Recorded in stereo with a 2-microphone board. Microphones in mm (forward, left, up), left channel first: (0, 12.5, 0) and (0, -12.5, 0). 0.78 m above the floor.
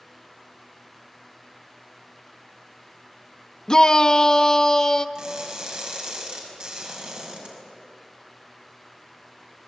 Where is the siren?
No siren in this recording.